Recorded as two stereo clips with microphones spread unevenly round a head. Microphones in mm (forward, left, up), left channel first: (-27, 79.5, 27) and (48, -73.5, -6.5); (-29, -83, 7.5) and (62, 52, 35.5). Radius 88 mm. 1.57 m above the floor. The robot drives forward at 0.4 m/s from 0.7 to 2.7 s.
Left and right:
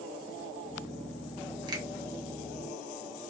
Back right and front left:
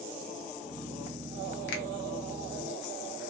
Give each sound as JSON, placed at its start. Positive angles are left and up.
{"t": 1.7, "sound": "a finger snap", "azimuth_deg": -130, "distance_m": 0.7}